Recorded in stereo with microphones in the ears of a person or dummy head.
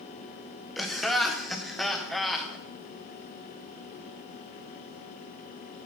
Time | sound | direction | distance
0.8 | laughter | centre (ahead or behind) | 0.7 m